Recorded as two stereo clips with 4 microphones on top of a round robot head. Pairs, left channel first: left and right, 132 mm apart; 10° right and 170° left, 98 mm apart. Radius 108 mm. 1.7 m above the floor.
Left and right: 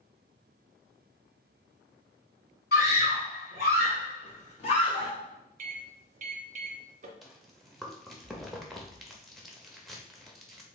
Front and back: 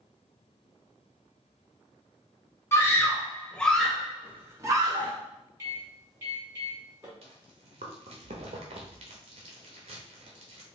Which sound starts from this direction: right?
A microwave, at 5.6 s.